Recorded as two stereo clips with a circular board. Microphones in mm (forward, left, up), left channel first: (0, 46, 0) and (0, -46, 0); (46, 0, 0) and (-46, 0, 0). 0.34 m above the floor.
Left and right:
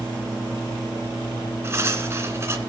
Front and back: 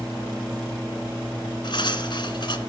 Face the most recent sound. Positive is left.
turn(degrees=-30)